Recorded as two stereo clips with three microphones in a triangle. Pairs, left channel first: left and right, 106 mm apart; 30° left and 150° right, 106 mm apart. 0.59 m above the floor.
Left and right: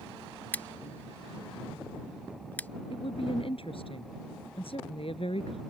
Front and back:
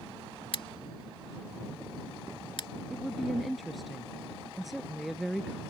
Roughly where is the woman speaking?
Behind left.